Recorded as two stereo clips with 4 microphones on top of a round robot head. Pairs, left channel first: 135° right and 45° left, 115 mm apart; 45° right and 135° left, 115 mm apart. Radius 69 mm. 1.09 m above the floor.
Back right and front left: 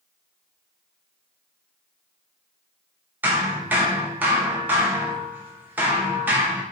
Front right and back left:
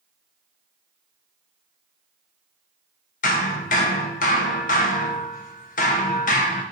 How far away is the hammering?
About 0.7 m.